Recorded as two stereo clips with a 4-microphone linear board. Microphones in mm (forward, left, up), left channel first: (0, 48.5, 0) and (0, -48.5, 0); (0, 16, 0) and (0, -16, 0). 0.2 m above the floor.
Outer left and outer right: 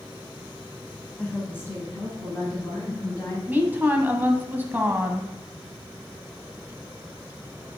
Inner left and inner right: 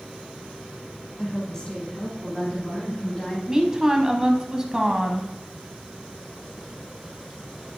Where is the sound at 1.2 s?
10° left (ahead or behind), 1.1 m; by 3.4 s 35° left (ahead or behind), 2.5 m.